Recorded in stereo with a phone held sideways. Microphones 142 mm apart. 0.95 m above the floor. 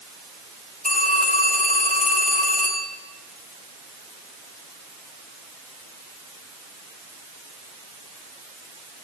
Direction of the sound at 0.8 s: 70° left (ahead or behind).